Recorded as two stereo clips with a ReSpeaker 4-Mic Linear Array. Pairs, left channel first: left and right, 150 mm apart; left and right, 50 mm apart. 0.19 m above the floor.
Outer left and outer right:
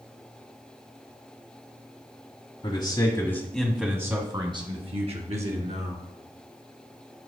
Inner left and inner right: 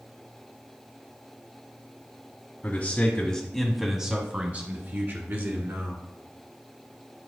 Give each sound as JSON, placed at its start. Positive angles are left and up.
{"t": 2.6, "sound": "a man speaking", "side_deg": 35, "distance_m": 1.3}